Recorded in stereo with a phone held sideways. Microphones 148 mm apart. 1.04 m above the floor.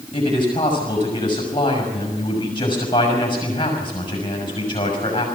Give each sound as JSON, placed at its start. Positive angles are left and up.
{"t": 0.1, "sound": "a man speaking", "side_deg": 35, "distance_m": 6.0}